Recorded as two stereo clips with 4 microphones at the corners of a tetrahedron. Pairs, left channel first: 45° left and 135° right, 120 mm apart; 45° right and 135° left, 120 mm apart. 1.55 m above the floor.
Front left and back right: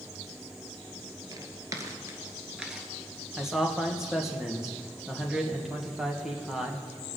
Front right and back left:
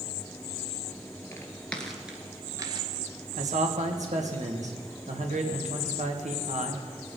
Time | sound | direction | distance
1.3 | footsteps | 100° right | 2.0 m
3.4 | a man speaking | 140° left | 1.7 m